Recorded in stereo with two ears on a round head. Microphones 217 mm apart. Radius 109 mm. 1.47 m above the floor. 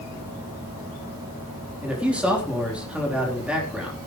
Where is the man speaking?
5° right (ahead or behind), 3.5 m.